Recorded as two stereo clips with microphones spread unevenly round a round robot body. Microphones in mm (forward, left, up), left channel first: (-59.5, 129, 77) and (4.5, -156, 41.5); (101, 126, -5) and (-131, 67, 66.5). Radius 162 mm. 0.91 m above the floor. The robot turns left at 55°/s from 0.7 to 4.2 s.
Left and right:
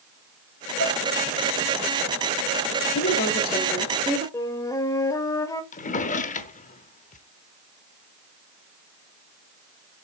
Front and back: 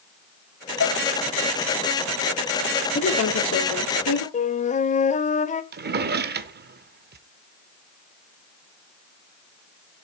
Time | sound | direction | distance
0.8 | dishes clattering | 40° left | 1.0 m
3.0 | a woman speaking | 55° left | 2.5 m
4.3 | a flute | 75° left | 0.6 m
5.7 | a drawer | 165° left | 0.9 m